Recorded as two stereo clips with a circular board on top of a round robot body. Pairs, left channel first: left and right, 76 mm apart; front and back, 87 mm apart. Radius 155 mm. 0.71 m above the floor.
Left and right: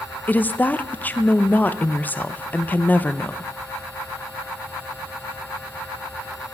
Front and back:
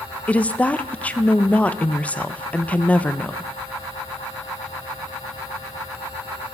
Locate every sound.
0.3 s a woman speaking: 55° left, 0.7 m